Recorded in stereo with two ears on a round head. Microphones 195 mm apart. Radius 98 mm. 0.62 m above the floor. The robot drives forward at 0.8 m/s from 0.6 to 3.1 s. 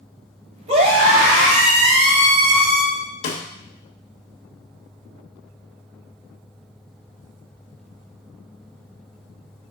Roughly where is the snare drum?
Left.